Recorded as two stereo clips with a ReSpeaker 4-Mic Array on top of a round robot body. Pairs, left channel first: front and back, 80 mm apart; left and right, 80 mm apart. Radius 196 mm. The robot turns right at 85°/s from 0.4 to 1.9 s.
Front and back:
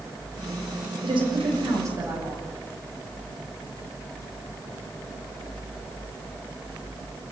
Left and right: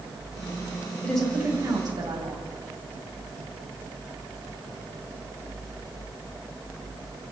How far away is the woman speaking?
About 8 m.